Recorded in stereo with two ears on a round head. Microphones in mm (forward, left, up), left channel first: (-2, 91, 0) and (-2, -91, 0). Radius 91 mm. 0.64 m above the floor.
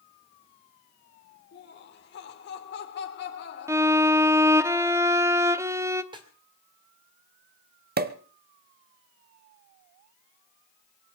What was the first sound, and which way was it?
Laughter, 60° left (ahead or behind).